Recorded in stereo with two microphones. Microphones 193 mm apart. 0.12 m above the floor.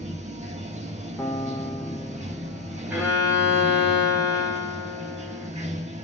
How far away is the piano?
About 1.0 m.